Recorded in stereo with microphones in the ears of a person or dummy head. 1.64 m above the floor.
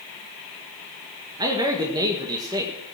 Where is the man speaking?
20° right (ahead or behind), 1.7 m.